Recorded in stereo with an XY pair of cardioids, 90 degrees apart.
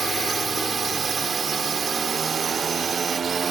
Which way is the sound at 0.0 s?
45° right.